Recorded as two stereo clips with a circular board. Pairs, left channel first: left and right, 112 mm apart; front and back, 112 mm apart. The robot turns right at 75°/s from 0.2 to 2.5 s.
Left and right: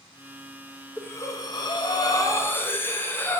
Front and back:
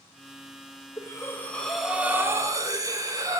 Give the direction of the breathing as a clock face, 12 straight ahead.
11 o'clock.